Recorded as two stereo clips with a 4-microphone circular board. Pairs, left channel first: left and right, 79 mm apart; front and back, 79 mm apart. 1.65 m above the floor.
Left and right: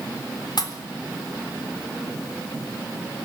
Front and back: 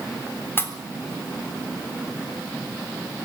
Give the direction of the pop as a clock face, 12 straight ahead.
10 o'clock.